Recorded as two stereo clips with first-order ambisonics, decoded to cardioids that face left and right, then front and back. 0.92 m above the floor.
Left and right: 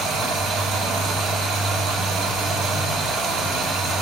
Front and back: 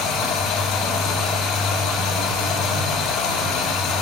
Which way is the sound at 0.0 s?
40° right.